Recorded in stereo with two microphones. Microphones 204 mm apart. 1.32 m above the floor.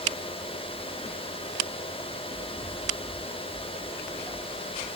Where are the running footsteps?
35° left (ahead or behind), 6 m; by 4.9 s 5° left (ahead or behind), 7 m.